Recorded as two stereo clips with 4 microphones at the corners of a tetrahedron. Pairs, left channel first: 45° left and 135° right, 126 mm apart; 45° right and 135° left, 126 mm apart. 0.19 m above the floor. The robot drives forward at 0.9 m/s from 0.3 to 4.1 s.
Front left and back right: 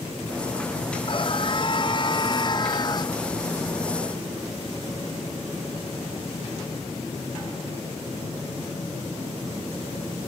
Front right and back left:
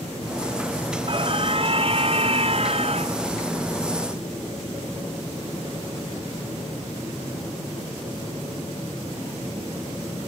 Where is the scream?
90° left; by 3.2 s 100° left.